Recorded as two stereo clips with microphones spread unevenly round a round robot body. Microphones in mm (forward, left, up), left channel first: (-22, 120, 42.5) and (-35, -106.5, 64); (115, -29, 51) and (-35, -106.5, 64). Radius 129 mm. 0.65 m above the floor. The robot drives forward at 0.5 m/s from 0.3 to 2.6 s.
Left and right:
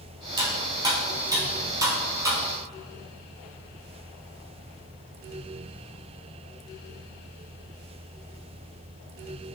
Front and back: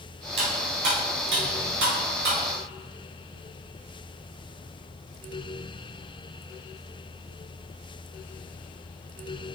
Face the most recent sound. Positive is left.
turn(degrees=-170)